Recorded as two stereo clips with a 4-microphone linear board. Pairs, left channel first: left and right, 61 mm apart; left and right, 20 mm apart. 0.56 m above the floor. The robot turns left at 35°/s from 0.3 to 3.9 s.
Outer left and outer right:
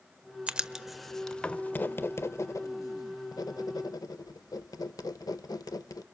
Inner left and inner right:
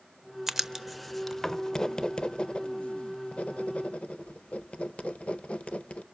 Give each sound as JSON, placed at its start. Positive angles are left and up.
{"t": 0.5, "sound": "writing", "side_deg": -20, "distance_m": 0.6}